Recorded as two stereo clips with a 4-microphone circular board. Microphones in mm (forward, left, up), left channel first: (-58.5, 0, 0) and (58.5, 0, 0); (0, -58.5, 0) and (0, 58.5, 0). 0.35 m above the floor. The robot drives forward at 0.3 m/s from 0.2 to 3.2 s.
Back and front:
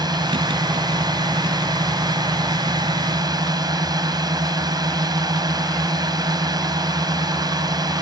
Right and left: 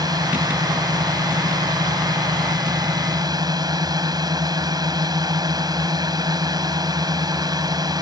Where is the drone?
45° left.